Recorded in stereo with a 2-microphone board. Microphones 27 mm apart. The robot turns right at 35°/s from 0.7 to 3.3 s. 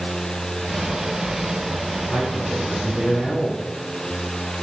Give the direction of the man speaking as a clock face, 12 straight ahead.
10 o'clock.